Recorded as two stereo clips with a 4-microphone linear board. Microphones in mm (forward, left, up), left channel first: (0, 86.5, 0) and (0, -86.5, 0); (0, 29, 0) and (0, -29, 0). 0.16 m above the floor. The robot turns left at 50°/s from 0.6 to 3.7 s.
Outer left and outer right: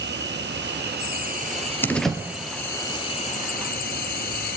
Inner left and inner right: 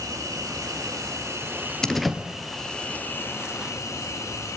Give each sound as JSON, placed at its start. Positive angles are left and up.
{"t": 0.0, "sound": "an insect", "azimuth_deg": -90, "distance_m": 1.5}
{"t": 1.8, "sound": "a door slam", "side_deg": 10, "distance_m": 2.0}